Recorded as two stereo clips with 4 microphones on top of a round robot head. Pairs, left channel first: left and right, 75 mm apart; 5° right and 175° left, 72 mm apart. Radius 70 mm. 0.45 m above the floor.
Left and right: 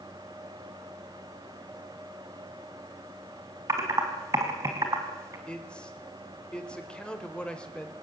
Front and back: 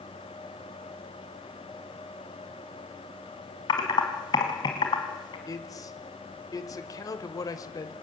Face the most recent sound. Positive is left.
turn(degrees=15)